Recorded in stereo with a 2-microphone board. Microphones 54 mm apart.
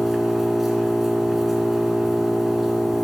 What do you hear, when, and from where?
0.0 s an engine running: 5° right (ahead or behind), 1.9 m